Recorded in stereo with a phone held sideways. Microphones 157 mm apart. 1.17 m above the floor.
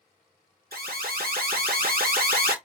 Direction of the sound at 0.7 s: 65° right (ahead or behind).